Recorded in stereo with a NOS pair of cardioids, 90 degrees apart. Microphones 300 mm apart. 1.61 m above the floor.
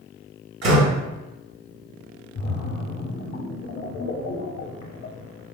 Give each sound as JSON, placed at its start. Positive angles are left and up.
{"t": 0.6, "sound": "a door slam", "azimuth_deg": -60, "distance_m": 1.4}
{"t": 2.4, "sound": "a splash", "azimuth_deg": 55, "distance_m": 0.7}